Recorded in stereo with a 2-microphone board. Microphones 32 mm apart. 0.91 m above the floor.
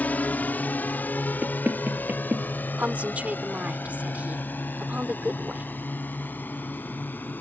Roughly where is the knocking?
Right.